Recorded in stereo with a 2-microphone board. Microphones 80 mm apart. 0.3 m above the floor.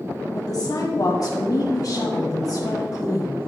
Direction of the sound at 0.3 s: 55° left (ahead or behind).